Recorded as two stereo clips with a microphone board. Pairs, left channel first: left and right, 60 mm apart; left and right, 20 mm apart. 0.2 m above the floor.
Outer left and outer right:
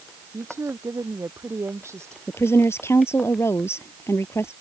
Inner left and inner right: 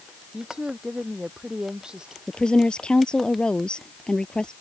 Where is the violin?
I don't hear a violin.